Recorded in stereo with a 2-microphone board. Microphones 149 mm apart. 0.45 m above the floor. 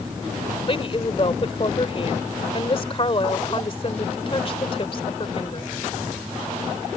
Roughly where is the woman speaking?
Left.